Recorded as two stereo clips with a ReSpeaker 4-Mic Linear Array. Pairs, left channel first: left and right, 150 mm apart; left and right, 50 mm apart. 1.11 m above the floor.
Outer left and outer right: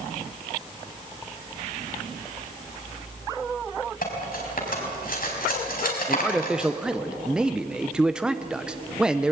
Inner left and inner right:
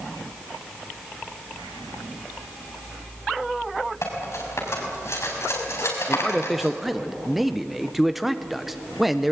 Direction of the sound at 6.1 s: 5° right (ahead or behind).